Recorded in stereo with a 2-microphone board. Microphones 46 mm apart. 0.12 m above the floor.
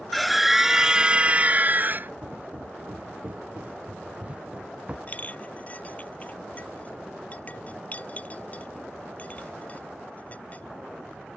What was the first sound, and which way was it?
A scream, centre (ahead or behind).